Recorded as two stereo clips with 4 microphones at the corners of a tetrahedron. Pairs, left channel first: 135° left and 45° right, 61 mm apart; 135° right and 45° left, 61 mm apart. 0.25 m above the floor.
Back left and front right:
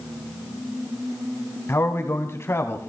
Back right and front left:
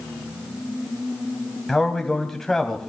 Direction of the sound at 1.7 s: 145° left.